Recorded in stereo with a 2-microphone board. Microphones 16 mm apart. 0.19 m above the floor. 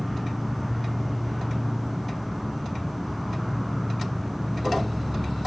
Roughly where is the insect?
Centre.